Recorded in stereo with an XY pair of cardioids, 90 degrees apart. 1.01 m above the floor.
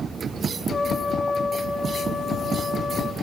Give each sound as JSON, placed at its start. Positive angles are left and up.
{"t": 0.7, "sound": "a trumpet", "azimuth_deg": 40, "distance_m": 3.0}